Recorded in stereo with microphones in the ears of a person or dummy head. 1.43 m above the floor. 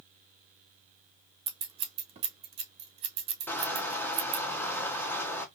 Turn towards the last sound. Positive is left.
turn(degrees=15)  # may be behind; listen again after turning